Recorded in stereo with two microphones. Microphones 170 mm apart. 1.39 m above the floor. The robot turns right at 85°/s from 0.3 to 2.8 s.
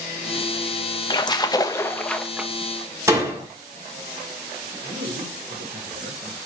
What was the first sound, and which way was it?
A splash, 25° left (ahead or behind).